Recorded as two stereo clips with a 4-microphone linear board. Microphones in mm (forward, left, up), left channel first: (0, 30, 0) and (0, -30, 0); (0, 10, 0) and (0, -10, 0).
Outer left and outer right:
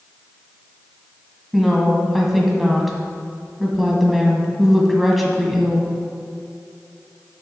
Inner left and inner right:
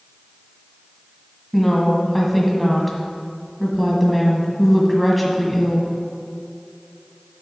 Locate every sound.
1.5 s a woman speaking: centre (ahead or behind), 1.5 m